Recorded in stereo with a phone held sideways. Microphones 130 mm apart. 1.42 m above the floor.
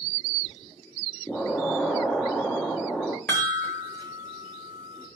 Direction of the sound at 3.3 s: 20° left (ahead or behind).